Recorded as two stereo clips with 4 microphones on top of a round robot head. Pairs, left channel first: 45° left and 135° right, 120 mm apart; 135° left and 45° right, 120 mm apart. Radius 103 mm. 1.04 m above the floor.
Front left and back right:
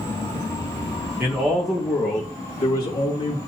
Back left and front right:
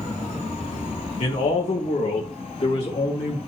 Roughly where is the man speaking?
Behind left.